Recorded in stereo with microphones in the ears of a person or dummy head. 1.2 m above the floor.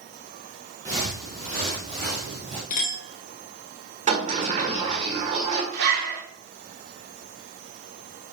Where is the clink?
40° left (ahead or behind), 1.8 m.